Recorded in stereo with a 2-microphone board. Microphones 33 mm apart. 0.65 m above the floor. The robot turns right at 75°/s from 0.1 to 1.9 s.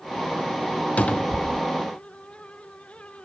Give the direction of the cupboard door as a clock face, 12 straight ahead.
8 o'clock.